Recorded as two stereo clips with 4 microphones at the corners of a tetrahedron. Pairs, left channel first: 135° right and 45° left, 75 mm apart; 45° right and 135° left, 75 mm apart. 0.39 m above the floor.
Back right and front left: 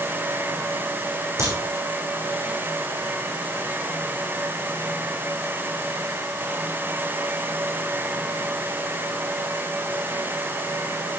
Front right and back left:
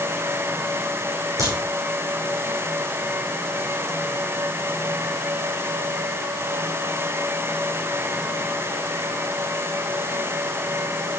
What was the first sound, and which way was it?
A crack, 100° left.